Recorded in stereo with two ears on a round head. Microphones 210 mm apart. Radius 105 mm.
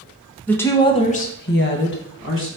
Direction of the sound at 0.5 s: 5° left (ahead or behind).